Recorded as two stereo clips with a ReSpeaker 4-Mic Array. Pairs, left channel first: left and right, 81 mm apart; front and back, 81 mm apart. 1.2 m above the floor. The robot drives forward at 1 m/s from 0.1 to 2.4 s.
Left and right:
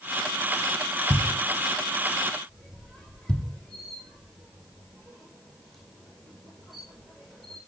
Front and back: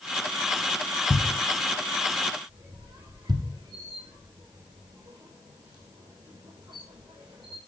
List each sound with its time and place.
1.1 s a thud: 30° left, 0.7 m; by 3.5 s 170° left, 1.2 m
2.5 s a squeak: straight behind, 4 m